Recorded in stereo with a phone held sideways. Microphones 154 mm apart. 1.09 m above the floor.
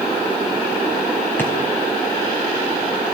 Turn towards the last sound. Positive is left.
turn(degrees=10)  # may be behind; listen again after turning